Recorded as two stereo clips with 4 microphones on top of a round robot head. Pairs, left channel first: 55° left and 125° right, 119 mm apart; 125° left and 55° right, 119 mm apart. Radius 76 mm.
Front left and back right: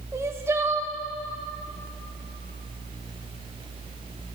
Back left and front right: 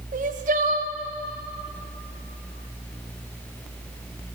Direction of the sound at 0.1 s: 60° right.